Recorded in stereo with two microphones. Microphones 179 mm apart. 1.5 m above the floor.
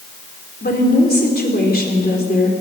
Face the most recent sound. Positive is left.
turn(degrees=60)  # may be behind; listen again after turning